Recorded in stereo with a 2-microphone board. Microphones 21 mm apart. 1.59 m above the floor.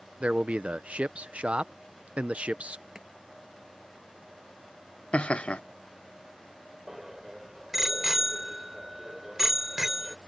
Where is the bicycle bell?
15° right (ahead or behind).